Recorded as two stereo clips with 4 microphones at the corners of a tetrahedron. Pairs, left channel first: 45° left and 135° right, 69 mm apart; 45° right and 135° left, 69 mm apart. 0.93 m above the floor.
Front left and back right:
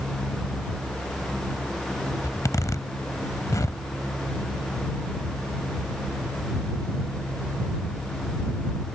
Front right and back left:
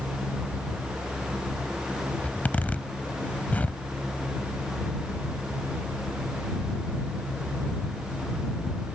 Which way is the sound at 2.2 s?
20° left.